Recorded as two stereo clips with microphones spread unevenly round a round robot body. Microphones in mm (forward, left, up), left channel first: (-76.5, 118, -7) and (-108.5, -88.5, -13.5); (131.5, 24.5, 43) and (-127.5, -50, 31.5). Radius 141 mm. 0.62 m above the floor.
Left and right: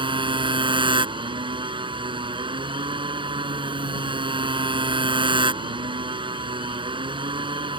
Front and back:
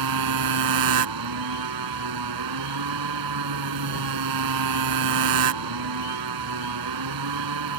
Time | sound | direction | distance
0.0 | a motorcycle | 165° right | ?